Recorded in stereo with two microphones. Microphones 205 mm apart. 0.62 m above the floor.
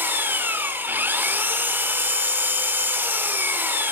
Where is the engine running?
10° right (ahead or behind), 1.2 m.